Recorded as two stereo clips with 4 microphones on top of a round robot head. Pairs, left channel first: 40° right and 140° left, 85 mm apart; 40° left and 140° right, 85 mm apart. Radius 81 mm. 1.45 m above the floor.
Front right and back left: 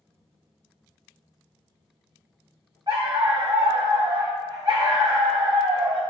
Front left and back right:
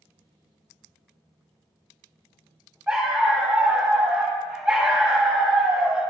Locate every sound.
2.9 s a dog barking: 150° left, 0.9 m